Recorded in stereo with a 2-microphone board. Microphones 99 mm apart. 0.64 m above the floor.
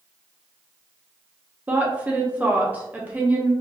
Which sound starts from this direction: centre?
A woman speaking, at 1.7 s.